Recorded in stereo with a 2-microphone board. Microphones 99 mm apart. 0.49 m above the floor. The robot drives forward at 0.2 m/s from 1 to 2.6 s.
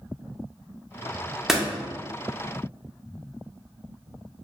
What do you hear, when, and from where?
1.5 s a door slam: 5° right (ahead or behind), 0.5 m